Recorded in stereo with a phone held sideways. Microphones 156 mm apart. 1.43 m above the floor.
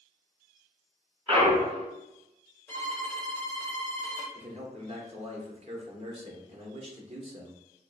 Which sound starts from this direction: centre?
A violin, at 2.7 s.